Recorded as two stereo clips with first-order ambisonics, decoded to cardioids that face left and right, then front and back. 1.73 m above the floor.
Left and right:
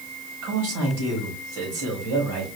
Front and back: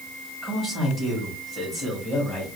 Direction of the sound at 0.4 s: 80° right.